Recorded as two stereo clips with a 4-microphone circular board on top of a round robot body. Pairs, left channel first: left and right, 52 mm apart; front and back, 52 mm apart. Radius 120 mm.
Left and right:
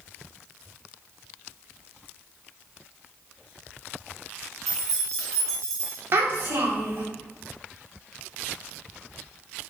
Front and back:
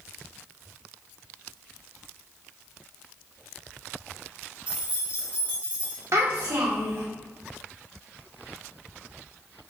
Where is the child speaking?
140° right, 1.2 m.